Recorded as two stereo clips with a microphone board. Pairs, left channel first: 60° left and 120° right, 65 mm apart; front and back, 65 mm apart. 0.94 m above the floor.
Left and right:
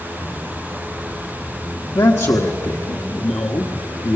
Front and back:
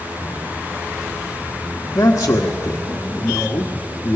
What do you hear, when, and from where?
1.9 s a man speaking: 45° left, 1.4 m